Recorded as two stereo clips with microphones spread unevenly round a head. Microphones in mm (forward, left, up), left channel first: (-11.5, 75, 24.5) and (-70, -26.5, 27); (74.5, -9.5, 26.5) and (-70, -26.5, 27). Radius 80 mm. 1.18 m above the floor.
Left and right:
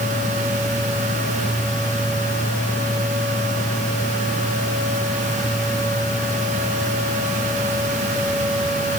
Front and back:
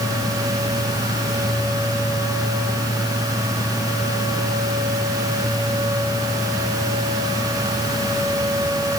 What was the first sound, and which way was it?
Only background noise.